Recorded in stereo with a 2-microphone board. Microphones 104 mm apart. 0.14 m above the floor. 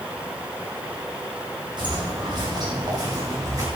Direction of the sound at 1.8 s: 45° right (ahead or behind).